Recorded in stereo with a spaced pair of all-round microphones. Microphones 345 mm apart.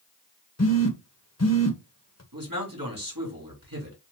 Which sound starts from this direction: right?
A man speaking, at 2.3 s.